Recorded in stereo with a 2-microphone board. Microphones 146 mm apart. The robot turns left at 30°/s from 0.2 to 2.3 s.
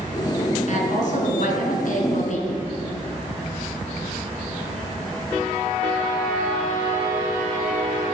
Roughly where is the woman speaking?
Behind left.